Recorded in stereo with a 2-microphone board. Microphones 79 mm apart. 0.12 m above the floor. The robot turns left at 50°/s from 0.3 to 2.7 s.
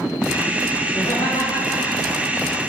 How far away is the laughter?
About 7 m.